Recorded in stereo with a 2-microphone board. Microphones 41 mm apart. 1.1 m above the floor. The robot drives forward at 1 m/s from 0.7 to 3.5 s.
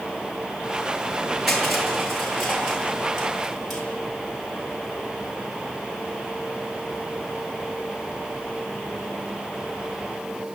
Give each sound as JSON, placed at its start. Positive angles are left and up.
{"t": 1.5, "sound": "crushing", "side_deg": 0, "distance_m": 7.5}